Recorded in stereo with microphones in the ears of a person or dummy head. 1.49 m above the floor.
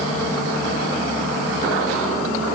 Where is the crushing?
No crushing in this recording.